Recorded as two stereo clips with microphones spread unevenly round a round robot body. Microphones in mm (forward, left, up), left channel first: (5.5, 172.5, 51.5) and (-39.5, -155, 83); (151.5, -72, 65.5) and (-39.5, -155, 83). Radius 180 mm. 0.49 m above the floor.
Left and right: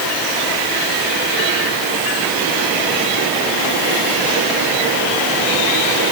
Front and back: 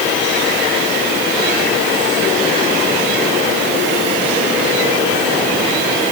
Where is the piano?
No piano in this recording.